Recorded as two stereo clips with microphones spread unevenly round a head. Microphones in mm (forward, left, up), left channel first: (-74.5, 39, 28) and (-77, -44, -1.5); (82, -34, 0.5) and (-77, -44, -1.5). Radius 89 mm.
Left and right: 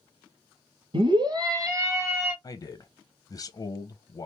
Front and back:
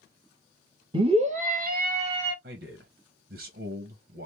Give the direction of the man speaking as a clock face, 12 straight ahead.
7 o'clock.